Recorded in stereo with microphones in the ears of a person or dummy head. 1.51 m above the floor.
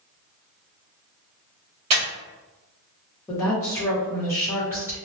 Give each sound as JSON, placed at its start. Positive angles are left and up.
{"t": 1.9, "sound": "breathing", "side_deg": -30, "distance_m": 0.8}
{"t": 3.3, "sound": "a woman speaking", "side_deg": 15, "distance_m": 0.9}